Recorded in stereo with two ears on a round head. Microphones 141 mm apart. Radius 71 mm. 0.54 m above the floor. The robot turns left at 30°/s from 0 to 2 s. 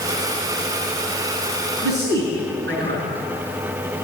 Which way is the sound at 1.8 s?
80° right.